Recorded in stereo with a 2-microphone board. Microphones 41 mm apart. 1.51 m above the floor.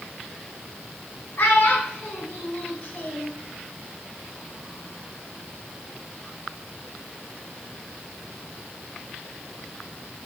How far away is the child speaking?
About 6.5 m.